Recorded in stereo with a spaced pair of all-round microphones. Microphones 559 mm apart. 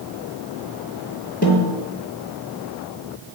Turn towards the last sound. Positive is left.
turn(degrees=15)  # may be behind; listen again after turning